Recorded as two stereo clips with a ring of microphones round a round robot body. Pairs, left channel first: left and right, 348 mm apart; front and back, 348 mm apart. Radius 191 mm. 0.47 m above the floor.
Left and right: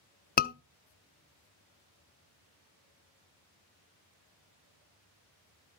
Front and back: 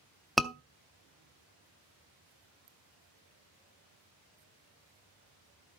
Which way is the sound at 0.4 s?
90° left.